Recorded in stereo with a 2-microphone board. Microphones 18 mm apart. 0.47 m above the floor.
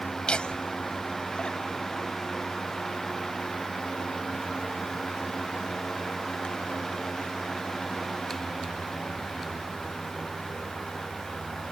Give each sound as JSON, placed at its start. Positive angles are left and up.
{"t": 0.3, "sound": "laughter", "side_deg": 65}